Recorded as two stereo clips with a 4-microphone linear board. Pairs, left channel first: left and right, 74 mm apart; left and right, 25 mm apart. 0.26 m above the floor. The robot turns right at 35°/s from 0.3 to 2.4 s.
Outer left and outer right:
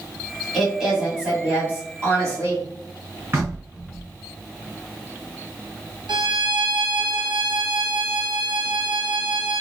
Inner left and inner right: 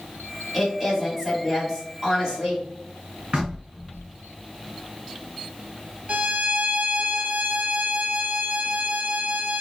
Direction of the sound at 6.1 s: 80° right.